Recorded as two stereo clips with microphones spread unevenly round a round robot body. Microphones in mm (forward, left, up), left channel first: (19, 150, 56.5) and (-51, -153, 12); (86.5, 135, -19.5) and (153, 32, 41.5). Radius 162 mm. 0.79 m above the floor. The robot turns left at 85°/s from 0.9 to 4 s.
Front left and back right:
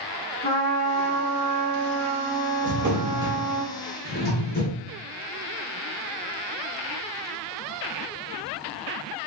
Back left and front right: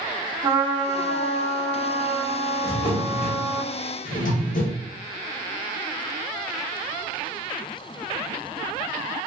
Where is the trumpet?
15° left, 1.7 m; by 3.6 s 140° left, 1.7 m.